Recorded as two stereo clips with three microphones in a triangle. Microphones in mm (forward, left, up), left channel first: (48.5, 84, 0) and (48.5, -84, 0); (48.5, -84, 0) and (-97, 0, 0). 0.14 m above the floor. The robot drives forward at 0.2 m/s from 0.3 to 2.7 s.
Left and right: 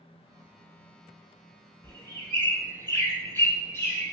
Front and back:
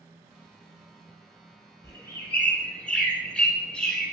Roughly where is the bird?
Ahead left.